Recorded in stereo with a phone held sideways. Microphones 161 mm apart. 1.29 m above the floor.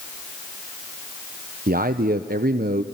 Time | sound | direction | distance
1.7 | a man speaking | 60° right (ahead or behind) | 0.6 m